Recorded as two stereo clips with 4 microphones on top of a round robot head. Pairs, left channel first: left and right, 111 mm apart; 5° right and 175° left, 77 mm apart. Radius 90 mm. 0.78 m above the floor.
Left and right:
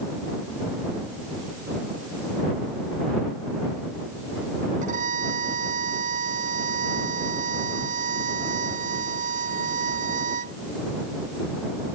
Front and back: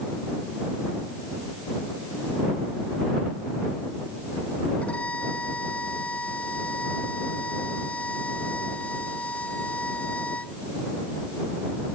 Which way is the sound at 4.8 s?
80° right.